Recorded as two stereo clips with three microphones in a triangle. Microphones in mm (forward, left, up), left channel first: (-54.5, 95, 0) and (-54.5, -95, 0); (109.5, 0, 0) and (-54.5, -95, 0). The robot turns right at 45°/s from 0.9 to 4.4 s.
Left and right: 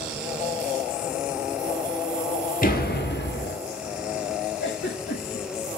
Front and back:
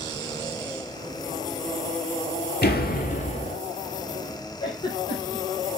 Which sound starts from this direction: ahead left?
A door slam, at 2.6 s.